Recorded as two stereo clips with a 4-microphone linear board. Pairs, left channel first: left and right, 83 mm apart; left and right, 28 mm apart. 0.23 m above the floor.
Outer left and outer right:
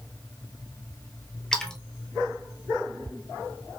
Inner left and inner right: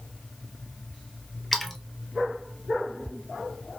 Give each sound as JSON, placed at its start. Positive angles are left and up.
{"t": 1.5, "sound": "a splash", "side_deg": 5, "distance_m": 0.9}